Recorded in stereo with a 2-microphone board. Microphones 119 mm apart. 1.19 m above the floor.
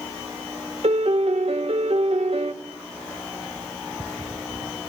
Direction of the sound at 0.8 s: 60° right (ahead or behind).